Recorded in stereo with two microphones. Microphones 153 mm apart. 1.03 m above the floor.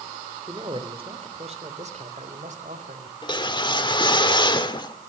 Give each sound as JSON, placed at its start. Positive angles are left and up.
{"t": 0.5, "sound": "a man speaking", "side_deg": -30, "distance_m": 2.5}
{"t": 3.2, "sound": "a whoosh", "side_deg": 30, "distance_m": 1.4}